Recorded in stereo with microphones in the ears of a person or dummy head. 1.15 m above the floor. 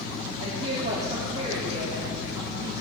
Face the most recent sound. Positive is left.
turn(degrees=-35)  # may be behind; listen again after turning